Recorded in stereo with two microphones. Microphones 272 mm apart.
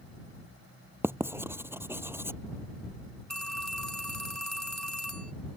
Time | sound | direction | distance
1.0 | writing | 10° right (ahead or behind) | ?
3.3 | a phone ringing | 75° right (ahead or behind) | ?